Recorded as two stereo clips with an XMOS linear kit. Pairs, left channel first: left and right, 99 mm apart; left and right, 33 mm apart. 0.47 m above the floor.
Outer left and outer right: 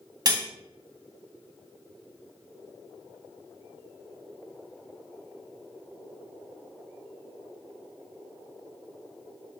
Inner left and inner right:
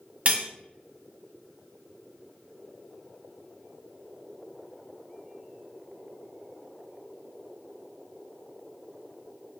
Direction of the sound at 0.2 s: 40° right (ahead or behind).